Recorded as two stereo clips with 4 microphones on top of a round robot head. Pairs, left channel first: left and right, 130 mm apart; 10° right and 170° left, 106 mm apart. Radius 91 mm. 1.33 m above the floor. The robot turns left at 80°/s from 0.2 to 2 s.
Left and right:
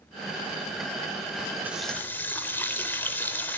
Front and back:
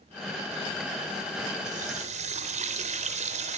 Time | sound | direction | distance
1.6 | a running tap | 165° right | 3.5 m